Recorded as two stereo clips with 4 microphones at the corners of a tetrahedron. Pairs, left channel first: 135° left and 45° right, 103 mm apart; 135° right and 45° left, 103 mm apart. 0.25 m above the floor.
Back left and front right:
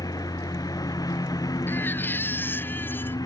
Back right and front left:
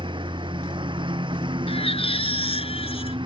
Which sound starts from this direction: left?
A lawn mower, at 0.0 s.